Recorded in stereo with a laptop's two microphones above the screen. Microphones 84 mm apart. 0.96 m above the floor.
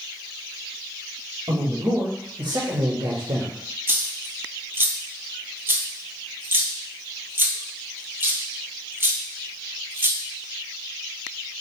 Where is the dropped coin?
25° right (ahead or behind), 1.1 m.